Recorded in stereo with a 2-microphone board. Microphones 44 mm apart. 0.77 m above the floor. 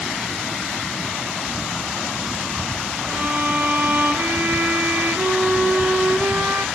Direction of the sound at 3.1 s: 45° right (ahead or behind).